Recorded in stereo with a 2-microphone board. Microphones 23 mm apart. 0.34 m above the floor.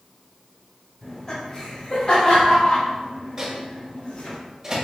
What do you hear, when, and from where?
1.0 s laughter: 30° left (ahead or behind), 1.3 m; by 4.4 s 60° left (ahead or behind), 3 m
3.4 s a microwave: 25° right (ahead or behind), 1.4 m